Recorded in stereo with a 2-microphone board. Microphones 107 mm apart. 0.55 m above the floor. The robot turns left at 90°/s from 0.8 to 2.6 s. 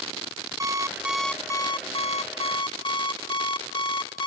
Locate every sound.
0.6 s an alarm clock: 145° right, 0.7 m; by 4.3 s 50° left, 0.7 m